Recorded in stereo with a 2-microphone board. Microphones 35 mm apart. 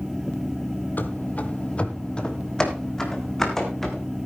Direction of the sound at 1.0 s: 55° left (ahead or behind).